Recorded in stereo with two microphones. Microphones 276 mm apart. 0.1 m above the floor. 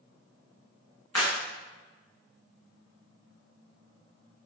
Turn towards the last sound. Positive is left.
turn(degrees=70)  # may be behind; listen again after turning